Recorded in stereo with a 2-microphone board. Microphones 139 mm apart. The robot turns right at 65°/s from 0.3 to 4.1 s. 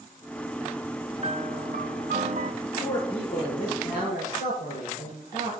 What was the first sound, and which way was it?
A piano, 140° right.